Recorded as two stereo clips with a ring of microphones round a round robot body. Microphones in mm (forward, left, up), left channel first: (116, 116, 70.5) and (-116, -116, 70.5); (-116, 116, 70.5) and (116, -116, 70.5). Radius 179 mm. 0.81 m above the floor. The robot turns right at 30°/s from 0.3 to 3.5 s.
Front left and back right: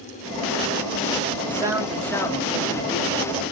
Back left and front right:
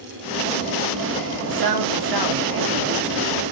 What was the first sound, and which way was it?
A man speaking, 60° right.